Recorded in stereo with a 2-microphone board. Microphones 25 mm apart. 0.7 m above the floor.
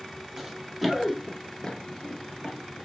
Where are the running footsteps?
10° right (ahead or behind), 1.3 m; by 2.9 s 45° left (ahead or behind), 1.2 m.